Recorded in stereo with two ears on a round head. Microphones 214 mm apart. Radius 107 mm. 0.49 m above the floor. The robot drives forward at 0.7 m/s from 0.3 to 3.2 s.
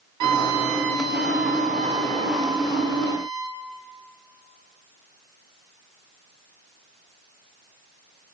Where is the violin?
80° right, 0.6 m; by 3.6 s 15° right (ahead or behind), 2 m.